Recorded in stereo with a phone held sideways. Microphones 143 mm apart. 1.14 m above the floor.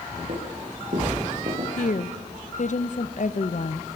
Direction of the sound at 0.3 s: 75° right (ahead or behind).